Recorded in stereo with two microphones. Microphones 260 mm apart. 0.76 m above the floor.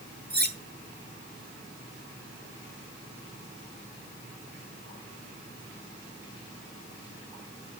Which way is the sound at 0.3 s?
40° right (ahead or behind).